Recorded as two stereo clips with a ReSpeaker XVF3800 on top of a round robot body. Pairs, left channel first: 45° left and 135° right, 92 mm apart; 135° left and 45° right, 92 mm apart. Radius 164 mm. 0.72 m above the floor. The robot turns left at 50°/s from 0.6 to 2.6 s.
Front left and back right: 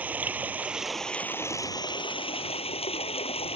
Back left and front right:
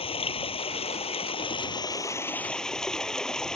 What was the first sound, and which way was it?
Running water, 150° left.